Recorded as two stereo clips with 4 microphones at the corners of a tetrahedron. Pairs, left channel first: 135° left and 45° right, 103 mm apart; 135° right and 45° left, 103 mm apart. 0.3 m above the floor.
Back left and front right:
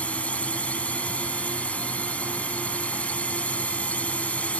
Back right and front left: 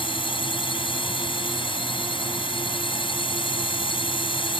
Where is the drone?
150° right.